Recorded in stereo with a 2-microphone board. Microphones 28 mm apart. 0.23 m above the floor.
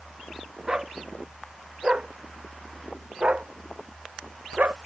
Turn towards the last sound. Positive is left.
turn(degrees=-60)  # may be behind; listen again after turning